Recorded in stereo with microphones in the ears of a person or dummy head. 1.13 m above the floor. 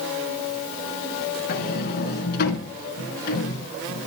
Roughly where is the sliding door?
Left.